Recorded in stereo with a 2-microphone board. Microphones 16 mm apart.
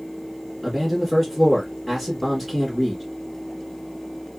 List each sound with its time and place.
0.6 s a man speaking: 10° left (ahead or behind), 1.6 m